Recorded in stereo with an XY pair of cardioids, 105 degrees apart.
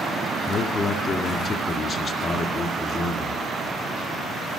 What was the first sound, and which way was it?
A man speaking, 45° left.